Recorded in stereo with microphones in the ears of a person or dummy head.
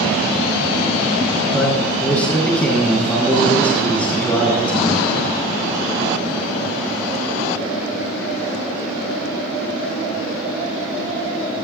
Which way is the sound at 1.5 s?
5° left (ahead or behind).